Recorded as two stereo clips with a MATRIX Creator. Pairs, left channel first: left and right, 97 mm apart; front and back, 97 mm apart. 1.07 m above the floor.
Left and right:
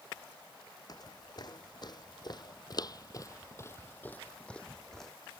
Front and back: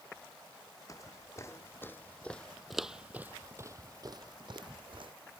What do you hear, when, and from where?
0.9 s footsteps: 50° left; by 5.1 s 175° left